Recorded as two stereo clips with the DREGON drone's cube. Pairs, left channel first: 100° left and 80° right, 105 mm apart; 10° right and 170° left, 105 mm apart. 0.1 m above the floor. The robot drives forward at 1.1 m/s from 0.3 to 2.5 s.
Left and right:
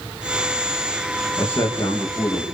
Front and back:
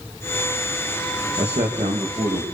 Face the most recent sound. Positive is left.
turn(degrees=160)